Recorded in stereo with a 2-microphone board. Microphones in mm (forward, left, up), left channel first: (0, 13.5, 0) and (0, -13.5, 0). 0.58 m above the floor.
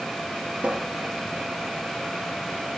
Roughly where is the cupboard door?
Right.